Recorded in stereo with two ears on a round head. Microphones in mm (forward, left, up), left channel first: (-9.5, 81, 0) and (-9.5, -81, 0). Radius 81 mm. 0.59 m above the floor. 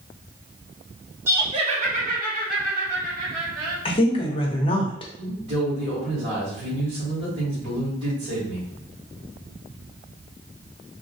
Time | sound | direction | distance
1.3 | laughter | 15° right (ahead or behind) | 0.6 m
3.9 | a woman speaking | 30° left (ahead or behind) | 0.8 m
5.2 | a man speaking | 70° right (ahead or behind) | 1.8 m